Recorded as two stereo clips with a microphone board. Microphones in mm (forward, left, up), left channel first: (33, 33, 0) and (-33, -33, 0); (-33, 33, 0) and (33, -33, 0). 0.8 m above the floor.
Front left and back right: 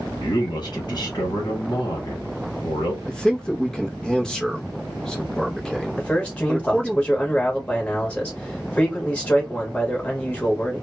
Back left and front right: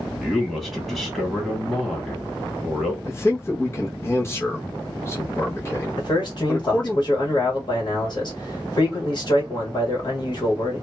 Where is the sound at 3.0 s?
120° left, 0.6 m.